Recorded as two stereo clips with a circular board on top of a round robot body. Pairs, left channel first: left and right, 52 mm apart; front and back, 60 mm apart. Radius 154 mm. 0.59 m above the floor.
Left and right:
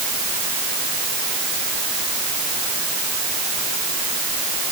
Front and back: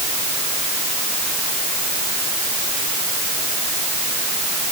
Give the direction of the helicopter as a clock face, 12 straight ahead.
I don't hear a helicopter.